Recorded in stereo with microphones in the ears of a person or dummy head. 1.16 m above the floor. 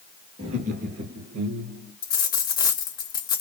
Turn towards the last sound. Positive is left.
turn(degrees=15)  # may be behind; listen again after turning